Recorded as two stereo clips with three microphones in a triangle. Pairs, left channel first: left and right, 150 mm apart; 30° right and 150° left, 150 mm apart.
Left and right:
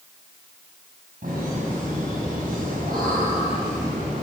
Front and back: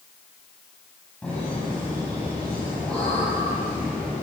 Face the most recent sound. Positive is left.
turn(degrees=-115)